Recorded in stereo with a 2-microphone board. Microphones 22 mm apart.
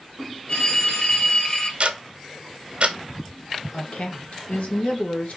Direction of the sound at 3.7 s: 85° left.